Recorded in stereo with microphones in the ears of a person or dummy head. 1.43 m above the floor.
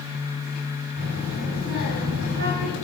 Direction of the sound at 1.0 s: 70° right (ahead or behind).